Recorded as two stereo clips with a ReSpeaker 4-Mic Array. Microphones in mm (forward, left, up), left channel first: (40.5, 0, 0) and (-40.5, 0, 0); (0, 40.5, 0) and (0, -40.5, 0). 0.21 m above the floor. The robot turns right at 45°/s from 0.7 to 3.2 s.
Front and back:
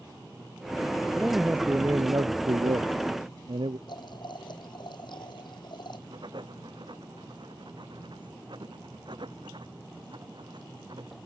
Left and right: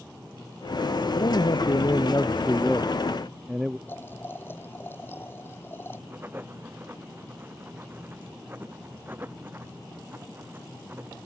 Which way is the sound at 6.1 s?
155° right.